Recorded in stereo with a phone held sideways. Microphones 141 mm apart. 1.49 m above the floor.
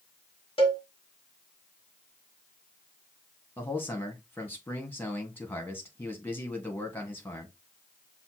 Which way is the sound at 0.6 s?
40° left (ahead or behind).